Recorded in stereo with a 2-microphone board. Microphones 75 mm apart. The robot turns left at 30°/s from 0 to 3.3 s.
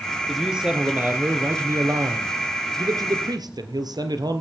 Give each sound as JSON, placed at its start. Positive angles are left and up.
{"t": 0.3, "sound": "a man speaking", "azimuth_deg": 0, "distance_m": 2.5}